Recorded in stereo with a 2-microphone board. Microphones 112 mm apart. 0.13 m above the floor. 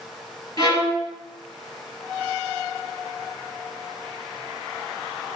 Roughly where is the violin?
Left.